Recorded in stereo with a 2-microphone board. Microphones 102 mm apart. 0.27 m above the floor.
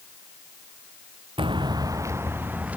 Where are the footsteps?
55° right (ahead or behind); by 2.8 s 15° right (ahead or behind).